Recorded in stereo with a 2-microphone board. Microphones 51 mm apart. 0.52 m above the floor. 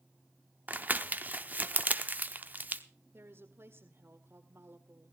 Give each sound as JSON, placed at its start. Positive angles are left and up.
{"t": 0.7, "sound": "crumpling", "side_deg": -35, "distance_m": 0.9}
{"t": 3.1, "sound": "a woman speaking", "side_deg": -50, "distance_m": 1.8}